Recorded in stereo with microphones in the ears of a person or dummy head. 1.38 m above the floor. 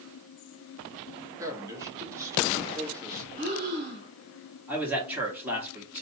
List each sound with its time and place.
1.4 s a man speaking: 15° right (ahead or behind), 1.7 m
3.4 s breathing: 40° right (ahead or behind), 2.0 m
4.7 s a man speaking: 5° right (ahead or behind), 1.9 m